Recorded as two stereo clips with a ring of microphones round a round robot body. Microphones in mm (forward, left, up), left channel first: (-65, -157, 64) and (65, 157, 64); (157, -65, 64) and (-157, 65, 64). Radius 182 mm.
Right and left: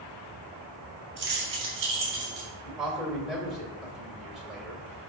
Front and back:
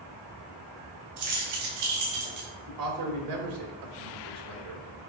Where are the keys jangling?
125° left, 3 m; by 2.5 s 120° left, 4 m.